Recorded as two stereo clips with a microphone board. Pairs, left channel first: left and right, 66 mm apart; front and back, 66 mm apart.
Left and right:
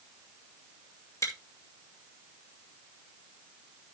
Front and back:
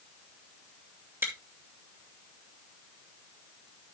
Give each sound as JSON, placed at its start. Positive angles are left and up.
{"t": 1.2, "sound": "chewing", "azimuth_deg": 125, "distance_m": 2.5}